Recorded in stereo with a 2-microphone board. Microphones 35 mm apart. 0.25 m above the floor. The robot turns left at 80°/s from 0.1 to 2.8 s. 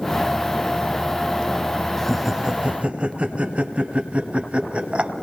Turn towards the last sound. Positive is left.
turn(degrees=-35)  # may be behind; listen again after turning